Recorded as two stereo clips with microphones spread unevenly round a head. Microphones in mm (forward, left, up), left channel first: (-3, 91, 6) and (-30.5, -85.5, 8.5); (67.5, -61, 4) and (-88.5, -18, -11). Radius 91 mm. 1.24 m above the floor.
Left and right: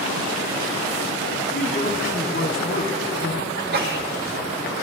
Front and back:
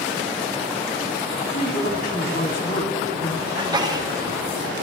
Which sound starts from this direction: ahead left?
A man speaking, at 1.5 s.